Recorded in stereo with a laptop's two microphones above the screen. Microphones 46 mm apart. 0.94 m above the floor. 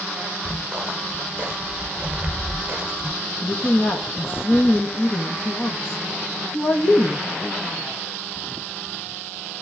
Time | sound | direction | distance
0.5 | footsteps | 20° right (ahead or behind) | 2 m
3.4 | a woman speaking | 55° left (ahead or behind) | 1.0 m